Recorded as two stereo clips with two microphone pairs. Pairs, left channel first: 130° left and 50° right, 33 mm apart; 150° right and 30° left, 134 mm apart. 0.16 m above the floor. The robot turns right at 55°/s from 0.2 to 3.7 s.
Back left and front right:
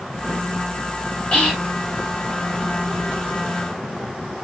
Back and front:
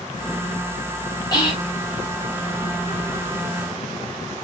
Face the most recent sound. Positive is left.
turn(degrees=-60)